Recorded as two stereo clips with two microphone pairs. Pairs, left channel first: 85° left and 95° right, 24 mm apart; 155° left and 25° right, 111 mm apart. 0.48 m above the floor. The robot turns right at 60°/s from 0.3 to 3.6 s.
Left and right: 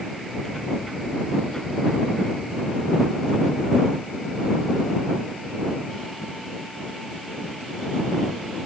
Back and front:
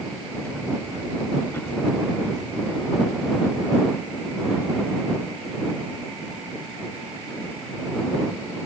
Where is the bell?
I don't hear a bell.